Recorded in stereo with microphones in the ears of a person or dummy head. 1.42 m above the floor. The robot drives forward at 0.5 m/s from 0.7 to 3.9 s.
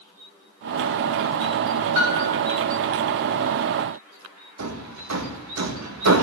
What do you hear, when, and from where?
1.9 s a piano: 55° right (ahead or behind), 4 m; by 2.4 s 60° right (ahead or behind), 4 m
4.6 s hammering: 85° right, 1.8 m